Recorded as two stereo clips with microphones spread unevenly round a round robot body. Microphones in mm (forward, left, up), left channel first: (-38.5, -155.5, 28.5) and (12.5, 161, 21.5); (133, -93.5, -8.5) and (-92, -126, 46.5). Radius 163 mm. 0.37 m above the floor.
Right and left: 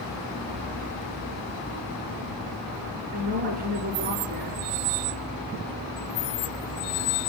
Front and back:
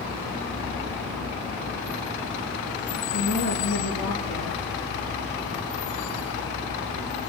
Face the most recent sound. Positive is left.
turn(degrees=15)